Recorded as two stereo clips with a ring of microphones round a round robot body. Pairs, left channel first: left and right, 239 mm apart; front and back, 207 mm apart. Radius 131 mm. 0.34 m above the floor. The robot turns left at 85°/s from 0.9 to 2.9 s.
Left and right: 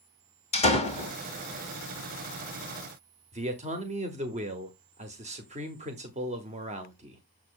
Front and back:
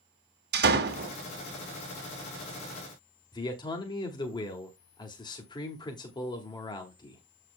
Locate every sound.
0.5 s a door slam: 150° left, 1.9 m; by 1.1 s 135° left, 1.9 m
3.3 s a man speaking: 55° right, 1.4 m